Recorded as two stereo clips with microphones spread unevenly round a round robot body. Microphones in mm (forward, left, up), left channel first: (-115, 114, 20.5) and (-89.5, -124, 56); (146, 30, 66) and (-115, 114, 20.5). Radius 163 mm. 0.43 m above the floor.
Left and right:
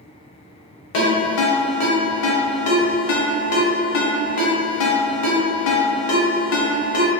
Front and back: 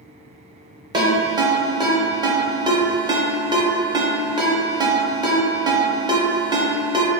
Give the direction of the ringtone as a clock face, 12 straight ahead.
9 o'clock.